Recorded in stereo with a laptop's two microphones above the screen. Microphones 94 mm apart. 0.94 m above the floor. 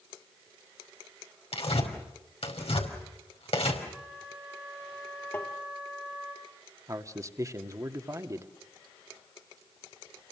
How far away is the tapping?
About 3 m.